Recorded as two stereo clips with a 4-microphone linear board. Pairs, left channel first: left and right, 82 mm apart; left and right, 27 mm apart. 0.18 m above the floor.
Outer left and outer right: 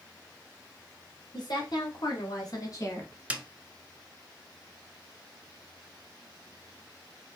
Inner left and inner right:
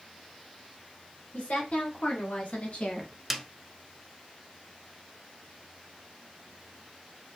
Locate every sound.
1.3 s a woman speaking: 60° left (ahead or behind), 2.5 m; by 3.1 s 35° left (ahead or behind), 1.2 m
3.3 s a snare drum: 15° right (ahead or behind), 0.7 m